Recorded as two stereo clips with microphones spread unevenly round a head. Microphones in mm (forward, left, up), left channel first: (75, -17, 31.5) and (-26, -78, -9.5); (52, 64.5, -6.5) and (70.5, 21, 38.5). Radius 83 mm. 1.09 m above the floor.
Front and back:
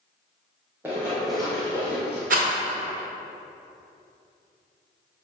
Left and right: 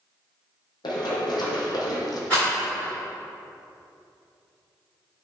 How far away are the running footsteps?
About 1.8 m.